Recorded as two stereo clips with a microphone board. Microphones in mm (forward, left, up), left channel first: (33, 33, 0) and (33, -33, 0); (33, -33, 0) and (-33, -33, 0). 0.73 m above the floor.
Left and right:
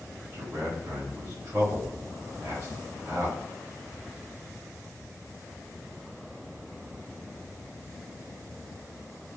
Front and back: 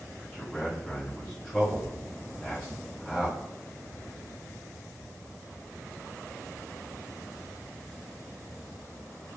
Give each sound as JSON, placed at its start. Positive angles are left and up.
{"t": 0.3, "sound": "a man speaking", "azimuth_deg": -75, "distance_m": 1.1}